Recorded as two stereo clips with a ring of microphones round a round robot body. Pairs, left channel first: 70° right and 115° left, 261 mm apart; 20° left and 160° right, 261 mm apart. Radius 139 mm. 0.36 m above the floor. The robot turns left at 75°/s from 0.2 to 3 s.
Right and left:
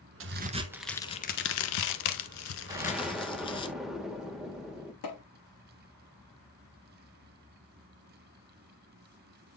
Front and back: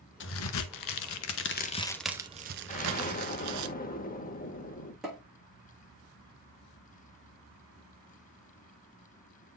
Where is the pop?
70° right, 6.5 m.